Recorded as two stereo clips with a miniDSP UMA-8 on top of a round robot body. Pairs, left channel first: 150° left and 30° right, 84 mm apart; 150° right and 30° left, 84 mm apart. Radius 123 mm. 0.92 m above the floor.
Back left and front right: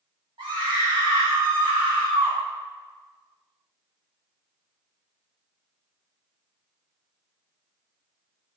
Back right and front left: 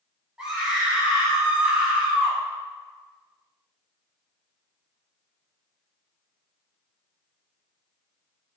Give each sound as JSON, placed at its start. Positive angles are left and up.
{"t": 0.4, "sound": "a scream", "azimuth_deg": -50, "distance_m": 2.5}